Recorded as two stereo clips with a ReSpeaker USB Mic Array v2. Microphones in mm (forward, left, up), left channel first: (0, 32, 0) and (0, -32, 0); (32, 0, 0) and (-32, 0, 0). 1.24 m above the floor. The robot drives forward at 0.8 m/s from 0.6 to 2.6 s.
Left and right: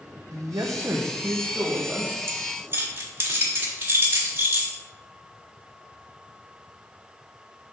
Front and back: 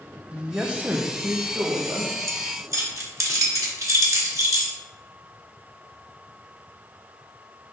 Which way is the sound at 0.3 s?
105° right.